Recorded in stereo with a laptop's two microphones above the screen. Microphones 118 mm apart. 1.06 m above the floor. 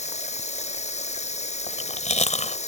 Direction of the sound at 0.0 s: 70° left (ahead or behind).